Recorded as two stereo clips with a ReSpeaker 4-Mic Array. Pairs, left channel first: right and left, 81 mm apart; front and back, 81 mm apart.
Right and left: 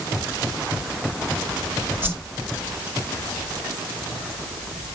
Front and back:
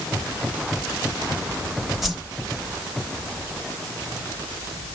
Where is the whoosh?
95° left, 1.2 m.